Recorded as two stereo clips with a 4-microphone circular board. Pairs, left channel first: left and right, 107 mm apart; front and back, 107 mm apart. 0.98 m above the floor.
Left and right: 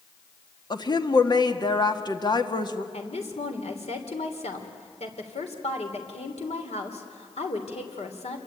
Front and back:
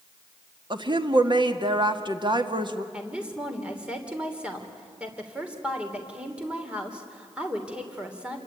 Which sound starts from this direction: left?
A woman speaking, at 2.9 s.